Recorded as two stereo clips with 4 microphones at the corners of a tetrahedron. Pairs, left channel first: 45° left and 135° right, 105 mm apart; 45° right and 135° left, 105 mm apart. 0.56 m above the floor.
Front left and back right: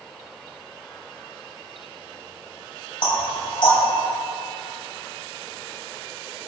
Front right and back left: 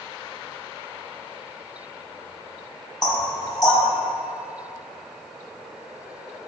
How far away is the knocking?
About 3 m.